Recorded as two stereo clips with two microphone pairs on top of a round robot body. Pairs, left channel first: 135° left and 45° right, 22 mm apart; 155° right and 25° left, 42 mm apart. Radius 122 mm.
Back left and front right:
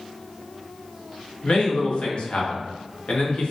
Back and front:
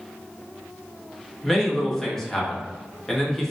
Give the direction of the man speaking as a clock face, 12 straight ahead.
8 o'clock.